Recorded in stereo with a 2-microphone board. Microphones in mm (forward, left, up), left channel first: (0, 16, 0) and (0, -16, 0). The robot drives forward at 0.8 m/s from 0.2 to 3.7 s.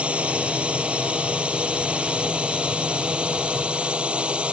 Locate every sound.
0.0 s a drone: 45° right (ahead or behind); by 4.5 s 40° right (ahead or behind)